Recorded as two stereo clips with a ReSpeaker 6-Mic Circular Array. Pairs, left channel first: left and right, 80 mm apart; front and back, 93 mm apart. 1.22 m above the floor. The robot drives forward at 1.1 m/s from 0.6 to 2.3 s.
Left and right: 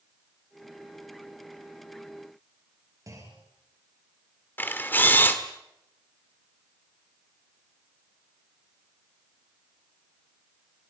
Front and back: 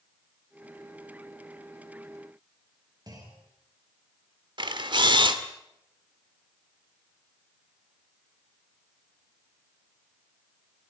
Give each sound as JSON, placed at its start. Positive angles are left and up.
{"t": 3.1, "sound": "a clunk", "azimuth_deg": -135, "distance_m": 5.5}
{"t": 4.6, "sound": "a camera shutter", "azimuth_deg": 155, "distance_m": 1.7}